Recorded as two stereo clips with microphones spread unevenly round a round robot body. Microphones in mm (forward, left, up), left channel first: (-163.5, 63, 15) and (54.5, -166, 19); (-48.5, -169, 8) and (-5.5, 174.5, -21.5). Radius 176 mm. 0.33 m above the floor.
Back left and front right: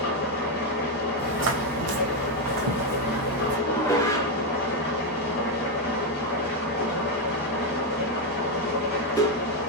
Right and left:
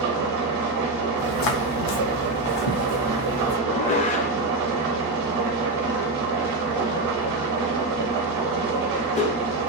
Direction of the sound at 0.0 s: 80° left.